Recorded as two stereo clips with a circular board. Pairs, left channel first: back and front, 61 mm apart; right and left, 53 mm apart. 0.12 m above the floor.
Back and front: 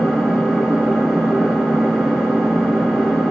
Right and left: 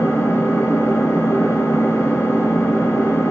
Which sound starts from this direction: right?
An engine running, at 0.0 s.